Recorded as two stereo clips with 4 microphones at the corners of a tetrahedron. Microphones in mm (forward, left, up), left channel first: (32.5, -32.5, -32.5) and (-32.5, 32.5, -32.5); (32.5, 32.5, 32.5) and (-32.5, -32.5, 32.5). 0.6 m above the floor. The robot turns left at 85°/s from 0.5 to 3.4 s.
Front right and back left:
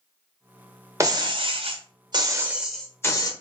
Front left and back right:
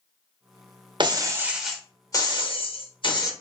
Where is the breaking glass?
170° right, 0.6 m; by 3.3 s 5° right, 0.6 m.